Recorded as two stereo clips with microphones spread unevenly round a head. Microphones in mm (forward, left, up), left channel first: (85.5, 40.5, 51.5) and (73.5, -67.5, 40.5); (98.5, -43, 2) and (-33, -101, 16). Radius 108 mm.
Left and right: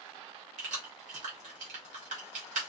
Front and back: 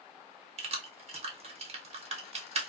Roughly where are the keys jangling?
Right.